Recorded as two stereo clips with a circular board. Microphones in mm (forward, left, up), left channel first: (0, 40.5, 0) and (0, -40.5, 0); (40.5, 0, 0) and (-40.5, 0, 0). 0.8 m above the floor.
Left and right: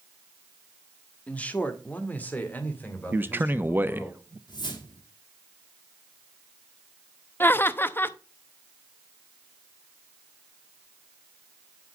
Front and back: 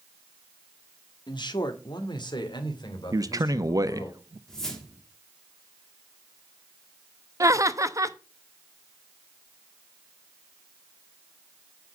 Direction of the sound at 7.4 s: 145° left.